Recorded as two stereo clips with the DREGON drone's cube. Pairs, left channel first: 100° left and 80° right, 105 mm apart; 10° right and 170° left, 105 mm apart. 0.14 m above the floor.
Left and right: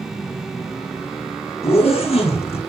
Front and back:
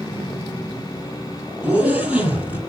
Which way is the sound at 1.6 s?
95° left.